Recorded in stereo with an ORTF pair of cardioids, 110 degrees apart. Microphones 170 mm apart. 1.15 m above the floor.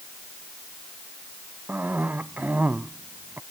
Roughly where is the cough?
Ahead.